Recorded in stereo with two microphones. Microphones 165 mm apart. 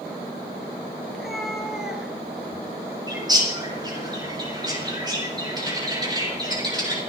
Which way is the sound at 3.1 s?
25° right (ahead or behind).